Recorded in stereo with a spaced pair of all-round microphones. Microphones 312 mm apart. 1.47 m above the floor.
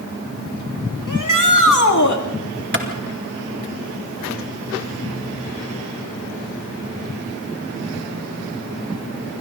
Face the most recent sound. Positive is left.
turn(degrees=-35)  # may be behind; listen again after turning